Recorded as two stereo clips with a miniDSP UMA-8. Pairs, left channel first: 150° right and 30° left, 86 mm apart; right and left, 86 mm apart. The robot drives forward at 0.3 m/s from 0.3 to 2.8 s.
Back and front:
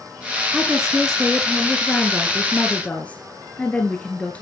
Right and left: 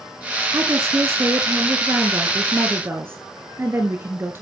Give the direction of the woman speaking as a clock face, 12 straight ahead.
8 o'clock.